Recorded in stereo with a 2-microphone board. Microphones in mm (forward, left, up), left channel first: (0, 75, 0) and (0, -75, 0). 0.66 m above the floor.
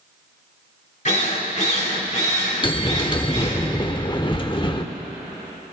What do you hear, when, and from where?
1.1 s a drill: 50° left (ahead or behind), 2.5 m
2.6 s a bell: 30° left (ahead or behind), 0.9 m